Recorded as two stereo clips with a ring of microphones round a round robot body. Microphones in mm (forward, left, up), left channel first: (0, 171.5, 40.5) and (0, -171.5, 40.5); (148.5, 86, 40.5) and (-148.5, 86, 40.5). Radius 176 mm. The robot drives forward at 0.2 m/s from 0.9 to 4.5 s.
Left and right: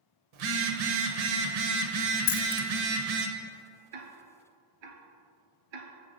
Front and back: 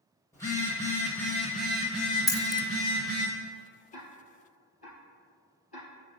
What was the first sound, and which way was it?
A phone buzzing, 80° right.